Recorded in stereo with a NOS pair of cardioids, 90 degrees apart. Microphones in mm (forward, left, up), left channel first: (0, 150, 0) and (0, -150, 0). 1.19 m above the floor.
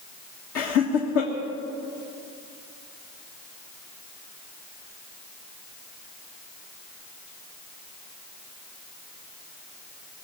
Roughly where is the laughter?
Ahead left.